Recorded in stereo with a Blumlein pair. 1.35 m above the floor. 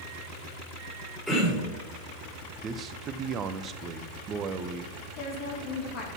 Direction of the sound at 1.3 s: 5° left.